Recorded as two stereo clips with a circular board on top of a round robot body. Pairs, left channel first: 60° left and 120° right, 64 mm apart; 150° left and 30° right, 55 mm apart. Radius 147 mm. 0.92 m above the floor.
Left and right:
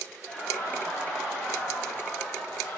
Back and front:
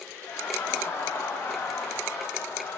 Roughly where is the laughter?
Behind.